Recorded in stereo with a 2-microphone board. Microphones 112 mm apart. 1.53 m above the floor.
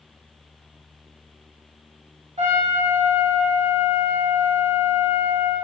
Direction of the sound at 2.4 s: 70° right (ahead or behind).